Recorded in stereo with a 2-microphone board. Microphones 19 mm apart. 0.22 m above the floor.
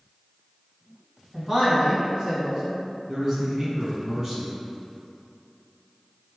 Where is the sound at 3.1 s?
25° right (ahead or behind), 1.5 m.